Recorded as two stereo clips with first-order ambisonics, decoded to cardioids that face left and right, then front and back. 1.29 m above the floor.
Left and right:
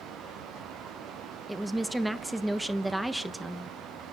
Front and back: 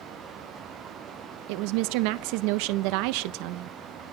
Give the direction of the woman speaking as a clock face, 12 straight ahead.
6 o'clock.